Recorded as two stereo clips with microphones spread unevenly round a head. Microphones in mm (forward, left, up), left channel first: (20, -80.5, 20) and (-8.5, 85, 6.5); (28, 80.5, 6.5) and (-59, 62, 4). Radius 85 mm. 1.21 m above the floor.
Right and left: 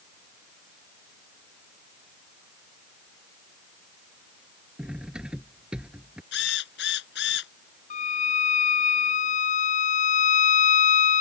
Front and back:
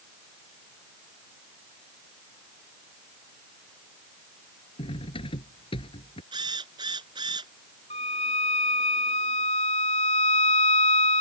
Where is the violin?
35° right.